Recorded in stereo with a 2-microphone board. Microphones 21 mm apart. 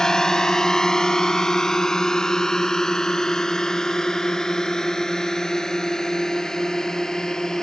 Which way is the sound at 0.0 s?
25° left (ahead or behind).